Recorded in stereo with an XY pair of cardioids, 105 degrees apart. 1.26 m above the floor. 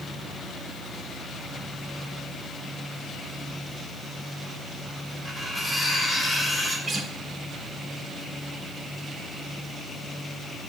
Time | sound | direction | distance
5.2 | cutlery clinking | 5° right | 3 m
6.9 | a guitar | 40° right | 1.6 m